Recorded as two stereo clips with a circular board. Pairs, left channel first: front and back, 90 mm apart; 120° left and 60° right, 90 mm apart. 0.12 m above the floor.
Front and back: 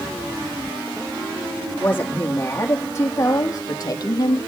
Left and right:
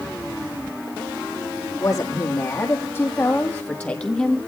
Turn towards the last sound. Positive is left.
turn(degrees=35)